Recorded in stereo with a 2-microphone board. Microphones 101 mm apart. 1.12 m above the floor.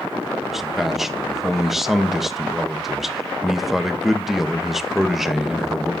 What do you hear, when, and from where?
0.5 s a man speaking: centre (ahead or behind), 1.1 m